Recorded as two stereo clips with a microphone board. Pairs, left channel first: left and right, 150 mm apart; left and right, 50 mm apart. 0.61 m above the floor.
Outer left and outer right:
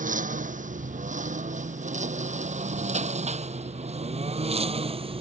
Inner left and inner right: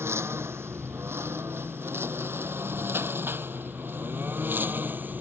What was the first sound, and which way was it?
A lawn mower, 60° right (ahead or behind).